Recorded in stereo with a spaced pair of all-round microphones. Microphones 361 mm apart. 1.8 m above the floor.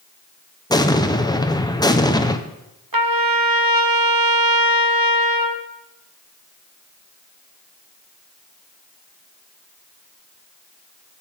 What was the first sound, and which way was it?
An explosion, 10° left (ahead or behind).